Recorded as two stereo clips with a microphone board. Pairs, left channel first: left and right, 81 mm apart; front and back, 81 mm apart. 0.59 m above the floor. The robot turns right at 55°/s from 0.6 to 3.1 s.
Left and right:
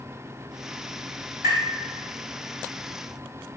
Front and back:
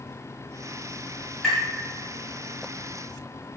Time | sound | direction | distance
1.4 | tapping | 85° right | 1.6 m